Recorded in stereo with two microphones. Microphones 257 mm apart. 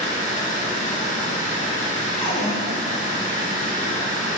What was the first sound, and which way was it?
Running water, 30° left (ahead or behind).